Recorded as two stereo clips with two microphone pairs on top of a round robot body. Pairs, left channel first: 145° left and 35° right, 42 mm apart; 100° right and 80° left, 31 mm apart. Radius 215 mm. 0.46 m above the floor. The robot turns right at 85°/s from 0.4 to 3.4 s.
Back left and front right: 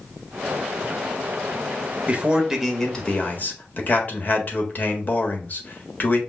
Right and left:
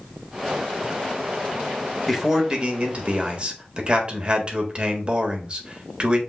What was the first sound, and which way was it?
A man speaking, 10° right.